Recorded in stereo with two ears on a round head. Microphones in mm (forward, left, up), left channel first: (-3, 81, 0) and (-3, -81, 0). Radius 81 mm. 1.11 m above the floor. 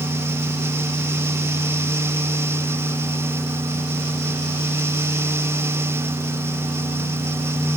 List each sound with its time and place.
Only background noise.